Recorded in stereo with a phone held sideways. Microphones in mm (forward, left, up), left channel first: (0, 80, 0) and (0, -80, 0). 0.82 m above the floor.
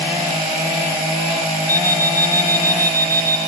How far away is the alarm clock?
About 5 m.